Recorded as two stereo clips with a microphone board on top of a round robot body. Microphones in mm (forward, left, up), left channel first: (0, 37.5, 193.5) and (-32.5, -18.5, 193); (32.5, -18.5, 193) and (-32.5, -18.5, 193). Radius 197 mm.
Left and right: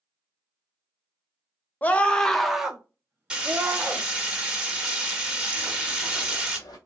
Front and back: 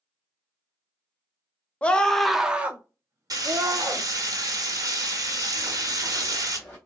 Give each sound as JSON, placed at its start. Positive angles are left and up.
{"t": 1.8, "sound": "a scream", "azimuth_deg": 40, "distance_m": 0.9}
{"t": 3.3, "sound": "frying", "azimuth_deg": 160, "distance_m": 1.3}
{"t": 5.6, "sound": "running footsteps", "azimuth_deg": 160, "distance_m": 1.3}